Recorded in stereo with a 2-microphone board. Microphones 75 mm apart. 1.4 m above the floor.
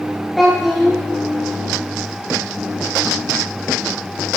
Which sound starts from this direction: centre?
A child speaking, at 0.4 s.